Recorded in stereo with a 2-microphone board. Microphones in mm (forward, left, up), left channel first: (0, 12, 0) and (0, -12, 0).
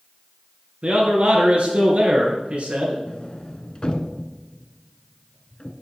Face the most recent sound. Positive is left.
turn(degrees=40)  # may be behind; listen again after turning